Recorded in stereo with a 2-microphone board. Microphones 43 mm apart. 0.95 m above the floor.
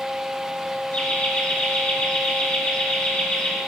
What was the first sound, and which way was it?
Laughter, 30° left (ahead or behind).